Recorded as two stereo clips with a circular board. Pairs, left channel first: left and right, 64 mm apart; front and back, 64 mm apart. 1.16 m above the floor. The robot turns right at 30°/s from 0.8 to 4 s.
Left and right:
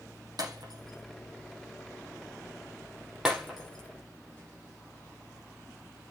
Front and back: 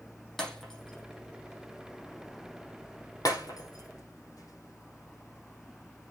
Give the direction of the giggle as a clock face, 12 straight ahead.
I don't hear a giggle.